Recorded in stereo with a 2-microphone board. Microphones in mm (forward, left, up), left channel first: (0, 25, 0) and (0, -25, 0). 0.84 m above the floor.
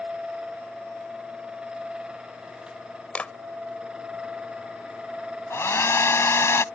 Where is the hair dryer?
60° left (ahead or behind).